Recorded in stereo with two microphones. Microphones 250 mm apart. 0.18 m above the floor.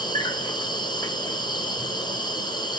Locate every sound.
0.0 s an insect: 15° left (ahead or behind), 1.0 m